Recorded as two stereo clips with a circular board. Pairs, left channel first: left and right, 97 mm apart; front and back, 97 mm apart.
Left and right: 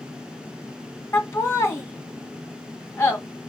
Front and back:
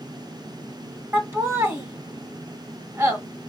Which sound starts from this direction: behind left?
Laughter, at 1.1 s.